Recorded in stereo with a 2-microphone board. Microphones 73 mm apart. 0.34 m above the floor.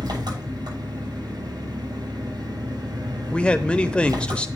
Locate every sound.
0.0 s an engine running: 80° right, 8 m
3.3 s a man speaking: 15° left (ahead or behind), 0.8 m